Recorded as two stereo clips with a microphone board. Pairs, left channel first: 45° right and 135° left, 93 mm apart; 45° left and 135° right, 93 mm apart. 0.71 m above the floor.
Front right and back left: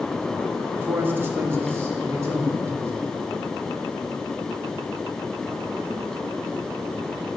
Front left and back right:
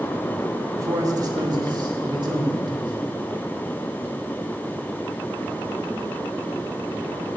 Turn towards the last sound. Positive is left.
turn(degrees=-165)